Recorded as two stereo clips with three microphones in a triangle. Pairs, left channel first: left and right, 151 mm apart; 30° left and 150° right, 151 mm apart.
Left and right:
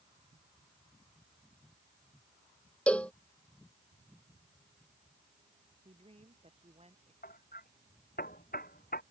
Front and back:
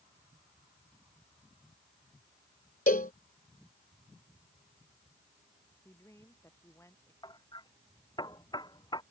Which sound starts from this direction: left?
Hammering, at 7.2 s.